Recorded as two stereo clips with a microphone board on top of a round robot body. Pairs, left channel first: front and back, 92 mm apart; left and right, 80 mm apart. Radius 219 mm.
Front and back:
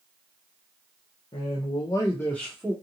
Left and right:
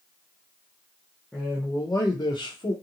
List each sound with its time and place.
1.3 s a man speaking: 10° left, 0.8 m; by 2.7 s 95° left, 0.9 m